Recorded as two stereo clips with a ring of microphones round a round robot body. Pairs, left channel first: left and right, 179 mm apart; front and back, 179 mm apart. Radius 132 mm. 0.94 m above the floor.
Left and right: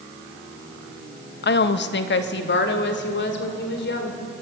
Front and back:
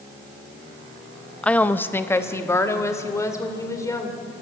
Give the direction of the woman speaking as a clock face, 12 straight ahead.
9 o'clock.